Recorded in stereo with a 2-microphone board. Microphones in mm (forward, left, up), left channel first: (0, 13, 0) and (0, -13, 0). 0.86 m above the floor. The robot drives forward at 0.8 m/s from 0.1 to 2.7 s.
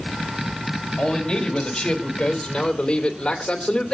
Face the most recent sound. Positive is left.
turn(degrees=35)  # may be behind; listen again after turning